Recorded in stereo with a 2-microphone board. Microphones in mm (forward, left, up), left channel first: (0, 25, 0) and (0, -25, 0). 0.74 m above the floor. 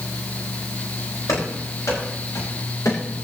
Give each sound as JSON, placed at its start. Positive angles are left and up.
{"t": 1.3, "sound": "running footsteps", "side_deg": 85, "distance_m": 9.5}